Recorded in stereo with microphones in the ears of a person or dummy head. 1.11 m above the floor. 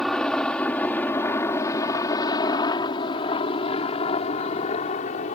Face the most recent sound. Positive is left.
turn(degrees=40)  # may be behind; listen again after turning